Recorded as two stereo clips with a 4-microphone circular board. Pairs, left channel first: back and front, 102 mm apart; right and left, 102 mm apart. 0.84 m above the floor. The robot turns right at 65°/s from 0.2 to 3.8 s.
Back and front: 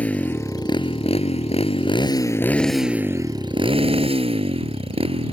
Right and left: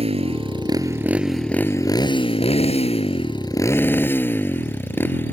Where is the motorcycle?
105° left; by 5.3 s 20° right.